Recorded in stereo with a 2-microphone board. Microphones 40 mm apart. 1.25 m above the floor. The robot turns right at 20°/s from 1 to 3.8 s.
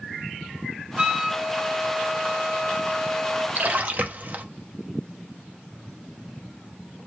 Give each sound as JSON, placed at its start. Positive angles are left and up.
{"t": 1.0, "sound": "a flute", "azimuth_deg": -30, "distance_m": 0.8}
{"t": 3.5, "sound": "a splash", "side_deg": -45, "distance_m": 0.6}